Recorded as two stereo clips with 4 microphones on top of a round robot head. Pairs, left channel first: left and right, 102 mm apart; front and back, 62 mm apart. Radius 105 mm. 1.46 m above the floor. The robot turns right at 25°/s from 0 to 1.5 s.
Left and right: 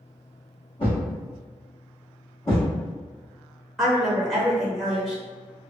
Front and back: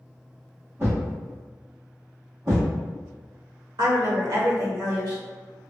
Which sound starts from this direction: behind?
A woman speaking, at 3.8 s.